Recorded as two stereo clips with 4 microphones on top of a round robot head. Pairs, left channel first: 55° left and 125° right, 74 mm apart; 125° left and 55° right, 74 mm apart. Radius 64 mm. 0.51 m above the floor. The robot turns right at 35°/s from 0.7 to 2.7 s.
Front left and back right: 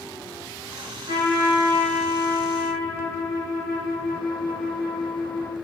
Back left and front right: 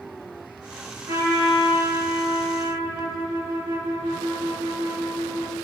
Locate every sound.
1.1 s a trumpet: 95° right, 3 m; by 5.5 s 35° right, 3 m